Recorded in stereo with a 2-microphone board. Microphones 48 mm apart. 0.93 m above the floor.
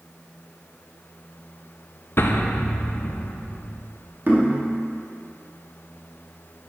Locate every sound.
2.2 s an explosion: 55° left (ahead or behind), 0.5 m
4.3 s knocking: 45° right (ahead or behind), 1.8 m